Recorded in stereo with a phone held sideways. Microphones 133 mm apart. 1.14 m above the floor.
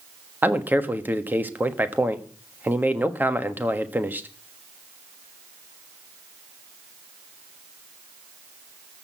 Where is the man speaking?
15° right (ahead or behind), 1.4 m.